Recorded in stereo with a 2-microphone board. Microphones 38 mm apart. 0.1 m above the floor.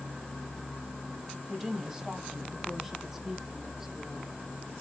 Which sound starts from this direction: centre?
A woman speaking, at 1.5 s.